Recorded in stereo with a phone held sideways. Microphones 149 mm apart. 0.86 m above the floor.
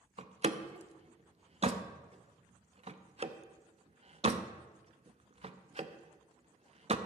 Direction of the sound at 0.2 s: 45° right (ahead or behind).